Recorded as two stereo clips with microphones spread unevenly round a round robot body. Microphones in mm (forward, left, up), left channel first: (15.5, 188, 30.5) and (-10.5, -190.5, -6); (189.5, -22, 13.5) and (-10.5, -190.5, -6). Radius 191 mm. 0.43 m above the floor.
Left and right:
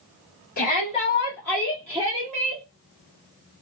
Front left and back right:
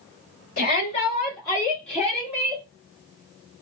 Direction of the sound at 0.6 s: 35° left.